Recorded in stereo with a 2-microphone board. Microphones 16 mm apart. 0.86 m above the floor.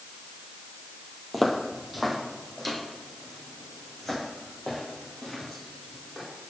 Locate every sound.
1.3 s footsteps: 5° right (ahead or behind), 1.0 m; by 6.2 s 5° left (ahead or behind), 4.5 m